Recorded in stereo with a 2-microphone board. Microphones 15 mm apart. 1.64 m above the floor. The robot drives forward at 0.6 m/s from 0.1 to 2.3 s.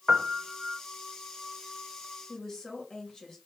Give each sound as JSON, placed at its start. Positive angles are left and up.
{"t": 0.1, "sound": "a piano", "side_deg": -50, "distance_m": 0.7}
{"t": 2.3, "sound": "a woman speaking", "side_deg": 30, "distance_m": 2.5}